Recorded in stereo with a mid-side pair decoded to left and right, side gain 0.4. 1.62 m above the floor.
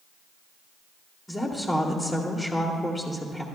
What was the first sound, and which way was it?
A woman speaking, 15° left.